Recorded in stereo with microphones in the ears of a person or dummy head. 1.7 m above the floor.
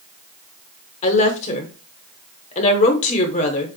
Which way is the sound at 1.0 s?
45° left (ahead or behind).